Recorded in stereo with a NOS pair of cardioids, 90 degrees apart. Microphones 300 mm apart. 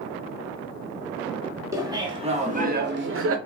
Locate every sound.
1.7 s laughter: 10° right, 1.3 m; by 3.4 s 50° right, 0.8 m